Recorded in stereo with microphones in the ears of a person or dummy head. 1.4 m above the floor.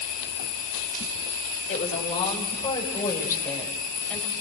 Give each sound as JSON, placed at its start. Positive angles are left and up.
{"t": 1.7, "sound": "a woman speaking", "side_deg": 35, "distance_m": 6.0}